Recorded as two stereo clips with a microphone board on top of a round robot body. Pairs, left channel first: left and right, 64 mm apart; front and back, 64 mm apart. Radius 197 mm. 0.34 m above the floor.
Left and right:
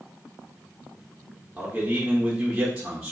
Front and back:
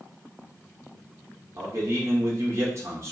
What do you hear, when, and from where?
1.6 s a man speaking: 165° right, 1.8 m